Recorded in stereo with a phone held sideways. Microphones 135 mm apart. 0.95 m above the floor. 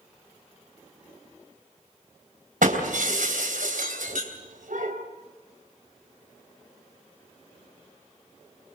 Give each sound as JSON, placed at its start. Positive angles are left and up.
{"t": 2.6, "sound": "breaking glass", "side_deg": -85, "distance_m": 3.5}